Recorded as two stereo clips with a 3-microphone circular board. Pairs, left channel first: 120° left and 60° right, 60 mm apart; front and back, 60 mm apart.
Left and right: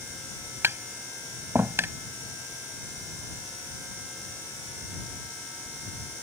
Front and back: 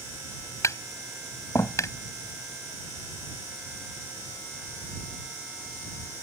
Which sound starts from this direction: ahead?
Tapping, at 0.6 s.